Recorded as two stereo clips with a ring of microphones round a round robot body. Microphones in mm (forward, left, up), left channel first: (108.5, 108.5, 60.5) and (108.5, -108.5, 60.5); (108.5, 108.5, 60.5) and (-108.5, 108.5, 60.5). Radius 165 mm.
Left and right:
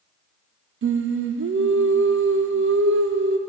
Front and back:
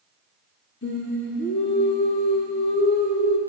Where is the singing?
55° right, 0.7 m.